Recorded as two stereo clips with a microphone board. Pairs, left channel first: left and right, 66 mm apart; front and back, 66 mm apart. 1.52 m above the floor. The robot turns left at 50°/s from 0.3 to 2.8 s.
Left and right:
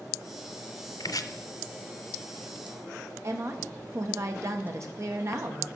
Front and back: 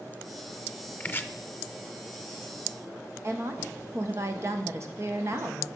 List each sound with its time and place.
1.0 s chopping: 65° left, 0.5 m; by 1.3 s 50° left, 0.5 m
3.2 s a woman speaking: 135° right, 1.2 m